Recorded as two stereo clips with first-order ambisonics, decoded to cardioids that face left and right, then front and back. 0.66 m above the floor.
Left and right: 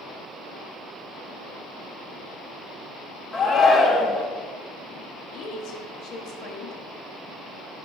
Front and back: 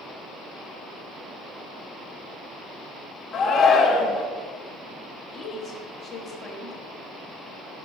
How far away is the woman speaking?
About 1.2 m.